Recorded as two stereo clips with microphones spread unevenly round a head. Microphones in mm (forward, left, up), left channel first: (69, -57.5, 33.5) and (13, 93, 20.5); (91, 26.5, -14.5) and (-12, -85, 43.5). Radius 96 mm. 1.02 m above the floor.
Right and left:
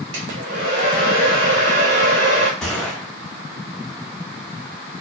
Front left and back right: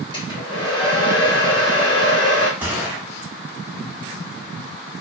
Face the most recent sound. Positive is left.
turn(degrees=-145)